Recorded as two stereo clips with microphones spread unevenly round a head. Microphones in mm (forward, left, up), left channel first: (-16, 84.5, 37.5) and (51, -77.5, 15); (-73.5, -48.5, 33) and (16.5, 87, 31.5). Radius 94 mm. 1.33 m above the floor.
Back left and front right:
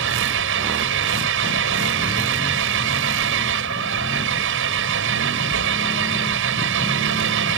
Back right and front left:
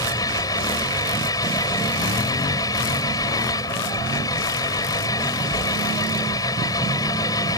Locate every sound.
0.0 s an engine running: 50° right